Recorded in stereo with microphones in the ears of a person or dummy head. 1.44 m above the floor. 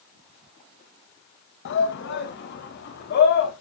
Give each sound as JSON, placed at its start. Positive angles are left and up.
{"t": 1.6, "sound": "a shout", "side_deg": 60, "distance_m": 1.6}